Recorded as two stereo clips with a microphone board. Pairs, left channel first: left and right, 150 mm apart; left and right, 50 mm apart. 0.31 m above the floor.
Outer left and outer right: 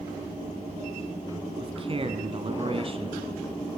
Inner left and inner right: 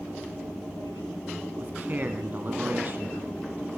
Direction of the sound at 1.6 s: 40° right (ahead or behind).